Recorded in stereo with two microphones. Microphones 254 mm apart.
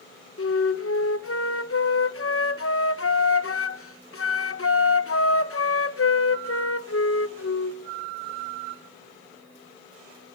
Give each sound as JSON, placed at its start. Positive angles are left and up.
{"t": 0.4, "sound": "a flute", "side_deg": 60, "distance_m": 1.0}